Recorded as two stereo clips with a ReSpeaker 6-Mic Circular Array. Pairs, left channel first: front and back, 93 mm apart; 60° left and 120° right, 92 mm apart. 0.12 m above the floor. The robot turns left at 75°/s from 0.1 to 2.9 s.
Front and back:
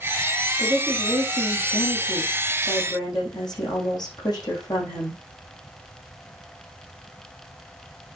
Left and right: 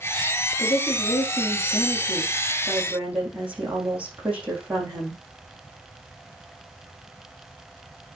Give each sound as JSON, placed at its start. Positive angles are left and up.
{"t": 0.6, "sound": "a woman speaking", "azimuth_deg": 130, "distance_m": 5.5}